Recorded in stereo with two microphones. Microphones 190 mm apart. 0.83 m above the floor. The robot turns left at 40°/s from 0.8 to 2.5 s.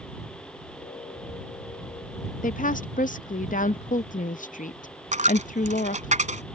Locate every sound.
2.4 s a woman speaking: 45° left (ahead or behind)
5.1 s a dropped coin: 40° right (ahead or behind)